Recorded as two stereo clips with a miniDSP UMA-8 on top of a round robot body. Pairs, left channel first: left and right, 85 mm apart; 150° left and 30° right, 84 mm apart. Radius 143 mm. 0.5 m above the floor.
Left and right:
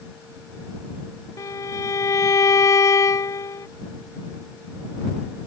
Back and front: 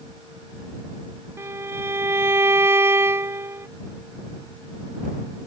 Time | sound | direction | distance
1.4 | a violin | 35° left | ?